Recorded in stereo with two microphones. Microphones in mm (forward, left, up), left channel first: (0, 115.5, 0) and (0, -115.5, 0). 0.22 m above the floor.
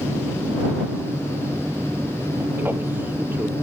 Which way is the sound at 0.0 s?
10° right (ahead or behind).